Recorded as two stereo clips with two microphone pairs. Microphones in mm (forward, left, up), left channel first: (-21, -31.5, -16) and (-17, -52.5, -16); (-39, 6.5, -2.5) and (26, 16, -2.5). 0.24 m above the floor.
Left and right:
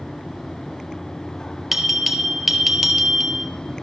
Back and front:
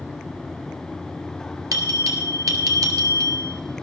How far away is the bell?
About 1.4 m.